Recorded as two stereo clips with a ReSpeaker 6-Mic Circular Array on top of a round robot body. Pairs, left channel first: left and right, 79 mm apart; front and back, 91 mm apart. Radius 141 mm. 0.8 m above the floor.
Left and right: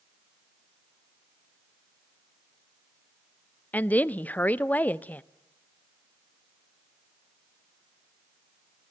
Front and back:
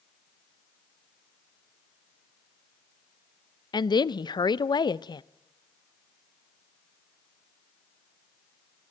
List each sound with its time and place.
3.7 s a woman speaking: 25° left, 0.7 m